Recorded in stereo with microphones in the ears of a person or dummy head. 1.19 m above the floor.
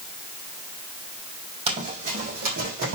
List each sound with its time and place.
1.7 s running footsteps: 30° right (ahead or behind), 3 m; by 3.0 s 50° right (ahead or behind), 4 m